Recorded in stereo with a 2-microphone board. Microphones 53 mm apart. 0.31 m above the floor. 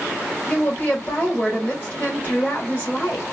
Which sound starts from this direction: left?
A woman speaking, at 0.5 s.